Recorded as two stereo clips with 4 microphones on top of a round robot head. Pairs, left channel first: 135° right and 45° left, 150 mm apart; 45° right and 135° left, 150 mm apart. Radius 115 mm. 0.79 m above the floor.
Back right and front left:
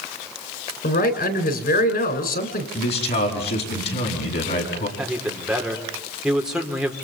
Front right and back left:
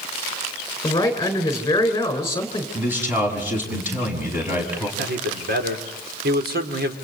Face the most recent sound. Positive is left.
turn(degrees=130)